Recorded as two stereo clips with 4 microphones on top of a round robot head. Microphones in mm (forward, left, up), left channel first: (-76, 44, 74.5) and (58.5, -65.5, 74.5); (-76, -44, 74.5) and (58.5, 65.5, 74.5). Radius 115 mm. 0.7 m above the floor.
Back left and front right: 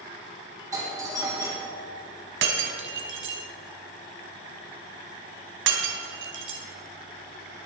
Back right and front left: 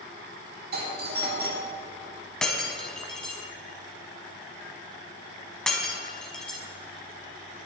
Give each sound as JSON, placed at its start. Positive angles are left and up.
{"t": 0.7, "sound": "a doorbell", "azimuth_deg": 30, "distance_m": 3.0}
{"t": 2.4, "sound": "breaking glass", "azimuth_deg": -55, "distance_m": 1.3}